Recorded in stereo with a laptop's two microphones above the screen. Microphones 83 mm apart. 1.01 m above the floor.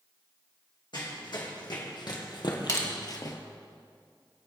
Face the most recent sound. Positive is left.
turn(degrees=40)  # may be behind; listen again after turning